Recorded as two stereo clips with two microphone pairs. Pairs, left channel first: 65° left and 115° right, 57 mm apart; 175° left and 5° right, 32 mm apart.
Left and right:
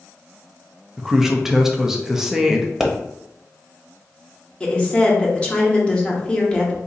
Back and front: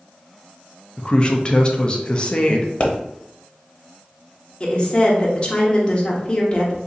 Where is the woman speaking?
125° left, 1.0 m.